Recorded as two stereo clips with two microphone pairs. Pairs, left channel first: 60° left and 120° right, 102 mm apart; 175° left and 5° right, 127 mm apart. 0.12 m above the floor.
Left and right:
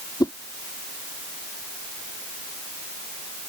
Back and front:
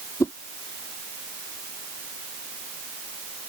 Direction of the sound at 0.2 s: 110° left.